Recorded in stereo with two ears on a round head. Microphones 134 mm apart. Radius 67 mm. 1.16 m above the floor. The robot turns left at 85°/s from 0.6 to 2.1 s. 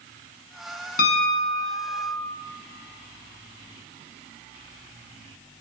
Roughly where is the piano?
Behind left.